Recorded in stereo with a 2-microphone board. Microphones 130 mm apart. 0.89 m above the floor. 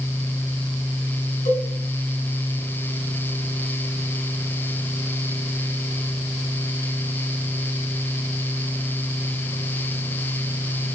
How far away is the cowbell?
About 4 m.